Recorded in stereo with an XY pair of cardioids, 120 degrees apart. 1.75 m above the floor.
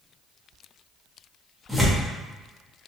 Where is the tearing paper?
Straight ahead, 0.9 m.